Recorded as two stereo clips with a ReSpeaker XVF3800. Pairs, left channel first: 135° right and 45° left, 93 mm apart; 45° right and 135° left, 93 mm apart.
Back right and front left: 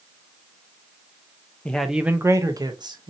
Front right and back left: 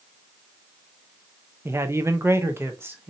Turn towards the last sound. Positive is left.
turn(degrees=70)